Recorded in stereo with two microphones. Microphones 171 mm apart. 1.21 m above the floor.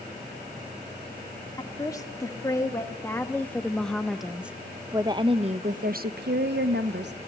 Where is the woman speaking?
20° left (ahead or behind), 2.5 m; by 7.1 s 80° right, 1.2 m.